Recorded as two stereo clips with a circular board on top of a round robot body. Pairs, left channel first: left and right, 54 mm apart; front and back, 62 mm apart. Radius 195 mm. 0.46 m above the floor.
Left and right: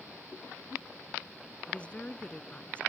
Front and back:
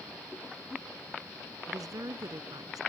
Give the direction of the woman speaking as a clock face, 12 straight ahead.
7 o'clock.